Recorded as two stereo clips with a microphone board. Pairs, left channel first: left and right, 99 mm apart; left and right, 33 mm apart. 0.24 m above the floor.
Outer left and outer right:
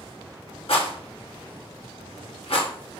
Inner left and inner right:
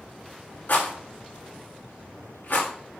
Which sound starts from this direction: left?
A rattle, at 0.7 s.